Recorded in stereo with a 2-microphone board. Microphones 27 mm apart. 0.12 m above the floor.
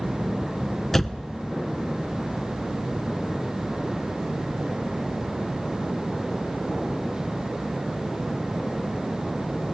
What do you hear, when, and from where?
0.9 s a door slam: 10° left (ahead or behind), 0.9 m